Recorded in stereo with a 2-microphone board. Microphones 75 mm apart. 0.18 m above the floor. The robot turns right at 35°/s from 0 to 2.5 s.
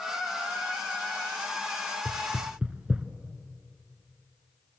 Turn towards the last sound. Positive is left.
turn(degrees=-20)  # may be behind; listen again after turning